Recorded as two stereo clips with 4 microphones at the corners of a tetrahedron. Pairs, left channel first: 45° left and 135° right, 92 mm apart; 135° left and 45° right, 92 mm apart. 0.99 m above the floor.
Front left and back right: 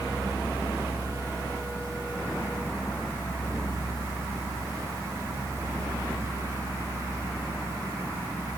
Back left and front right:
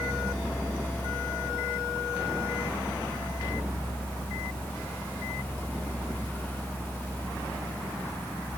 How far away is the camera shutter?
No camera shutter in this recording.